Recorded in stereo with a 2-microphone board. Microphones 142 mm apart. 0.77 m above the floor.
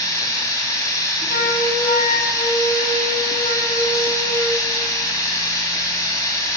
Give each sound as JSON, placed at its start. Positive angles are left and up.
{"t": 0.0, "sound": "running water", "side_deg": 25, "distance_m": 5.5}
{"t": 1.3, "sound": "a flute", "side_deg": 85, "distance_m": 3.5}